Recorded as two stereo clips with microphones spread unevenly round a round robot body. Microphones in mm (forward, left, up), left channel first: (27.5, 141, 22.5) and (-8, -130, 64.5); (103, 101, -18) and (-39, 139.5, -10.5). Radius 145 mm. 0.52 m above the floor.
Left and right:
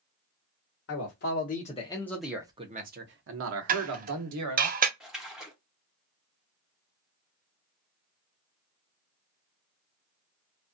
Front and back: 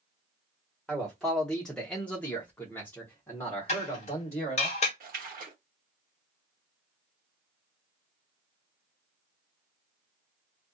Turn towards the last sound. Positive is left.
turn(degrees=170)